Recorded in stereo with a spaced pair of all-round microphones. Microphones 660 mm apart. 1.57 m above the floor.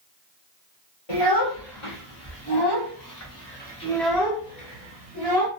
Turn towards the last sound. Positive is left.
turn(degrees=-40)  # may be behind; listen again after turning